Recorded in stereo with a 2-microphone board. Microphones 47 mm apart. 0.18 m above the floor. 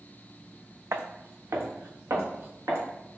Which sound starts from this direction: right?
Footsteps, at 0.9 s.